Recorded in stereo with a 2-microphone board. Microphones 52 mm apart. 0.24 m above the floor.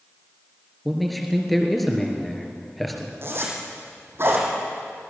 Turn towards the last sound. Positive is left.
turn(degrees=-50)  # may be behind; listen again after turning